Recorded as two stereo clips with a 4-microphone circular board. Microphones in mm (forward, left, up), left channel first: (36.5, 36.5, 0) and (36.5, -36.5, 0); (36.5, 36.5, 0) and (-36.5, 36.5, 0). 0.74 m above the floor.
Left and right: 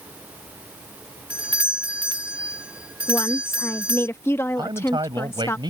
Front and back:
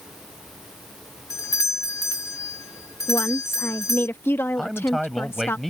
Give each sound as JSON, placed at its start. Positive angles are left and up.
{"t": 1.3, "sound": "a doorbell", "azimuth_deg": -20}
{"t": 3.1, "sound": "a woman speaking", "azimuth_deg": 50}
{"t": 4.6, "sound": "a man speaking", "azimuth_deg": -90}